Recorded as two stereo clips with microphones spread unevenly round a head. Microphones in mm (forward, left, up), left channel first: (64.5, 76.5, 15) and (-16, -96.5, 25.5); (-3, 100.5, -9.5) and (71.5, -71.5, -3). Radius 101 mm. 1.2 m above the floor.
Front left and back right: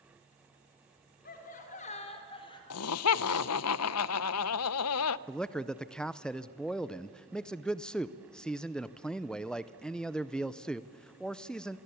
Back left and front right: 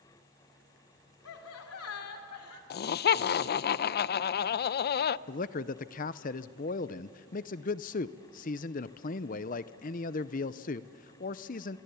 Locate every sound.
1.2 s laughter: 115° left, 3 m; by 2.6 s 135° left, 3.5 m
2.7 s laughter: 75° left, 0.5 m
5.3 s a man speaking: 145° left, 0.5 m